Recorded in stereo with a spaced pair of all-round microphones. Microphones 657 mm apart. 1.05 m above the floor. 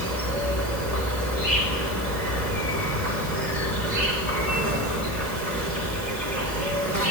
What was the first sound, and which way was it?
An insect, 85° right.